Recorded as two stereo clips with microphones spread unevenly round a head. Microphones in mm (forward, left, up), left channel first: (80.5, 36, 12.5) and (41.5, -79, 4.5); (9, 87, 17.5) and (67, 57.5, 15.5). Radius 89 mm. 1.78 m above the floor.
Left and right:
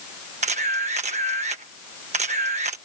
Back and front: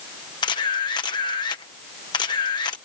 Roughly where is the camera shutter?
Behind.